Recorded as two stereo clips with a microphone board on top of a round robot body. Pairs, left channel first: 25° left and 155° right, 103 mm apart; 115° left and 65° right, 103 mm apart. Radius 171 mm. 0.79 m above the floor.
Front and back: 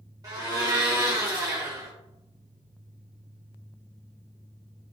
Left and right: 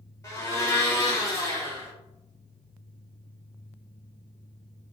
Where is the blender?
165° left, 1.4 m.